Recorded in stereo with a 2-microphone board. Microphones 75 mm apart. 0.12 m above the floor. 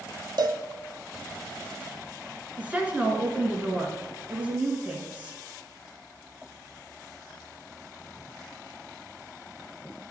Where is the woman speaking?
15° right (ahead or behind), 1.3 m.